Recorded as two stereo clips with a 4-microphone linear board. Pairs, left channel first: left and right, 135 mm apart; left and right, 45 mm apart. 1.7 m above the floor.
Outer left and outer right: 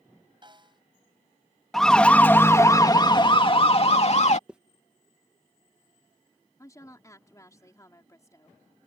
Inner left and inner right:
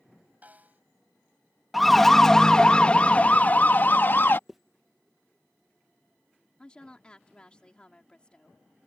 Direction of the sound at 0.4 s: 35° right (ahead or behind).